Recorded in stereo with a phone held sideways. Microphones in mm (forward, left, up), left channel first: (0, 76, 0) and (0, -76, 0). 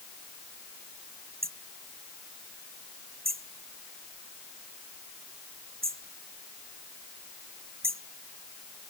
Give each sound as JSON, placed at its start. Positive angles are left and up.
{"t": 1.4, "sound": "hammering", "side_deg": -80}